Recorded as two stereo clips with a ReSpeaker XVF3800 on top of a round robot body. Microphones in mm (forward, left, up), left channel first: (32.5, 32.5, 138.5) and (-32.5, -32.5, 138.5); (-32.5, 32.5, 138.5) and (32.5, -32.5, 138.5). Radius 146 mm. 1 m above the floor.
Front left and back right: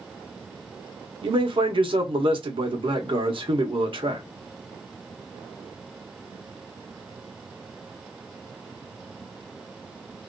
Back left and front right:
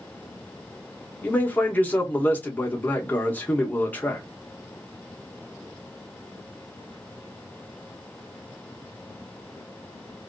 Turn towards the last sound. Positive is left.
turn(degrees=-155)